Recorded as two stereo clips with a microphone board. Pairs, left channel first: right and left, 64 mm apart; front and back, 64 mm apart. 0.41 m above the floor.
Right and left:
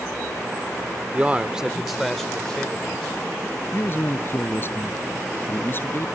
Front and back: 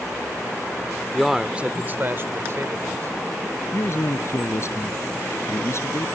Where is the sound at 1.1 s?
90° left; by 3.2 s 160° right.